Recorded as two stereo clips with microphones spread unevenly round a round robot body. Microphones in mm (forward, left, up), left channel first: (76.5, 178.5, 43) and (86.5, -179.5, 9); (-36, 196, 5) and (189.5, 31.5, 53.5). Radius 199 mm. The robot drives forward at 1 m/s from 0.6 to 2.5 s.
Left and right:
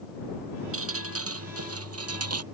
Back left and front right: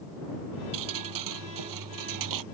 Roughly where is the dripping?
Ahead right.